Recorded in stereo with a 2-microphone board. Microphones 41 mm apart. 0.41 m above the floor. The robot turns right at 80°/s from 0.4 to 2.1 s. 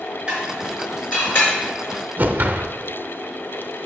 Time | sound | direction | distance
0.3 | dishes clattering | 25° right (ahead or behind) | 4 m
2.2 | a whoosh | 45° right (ahead or behind) | 0.6 m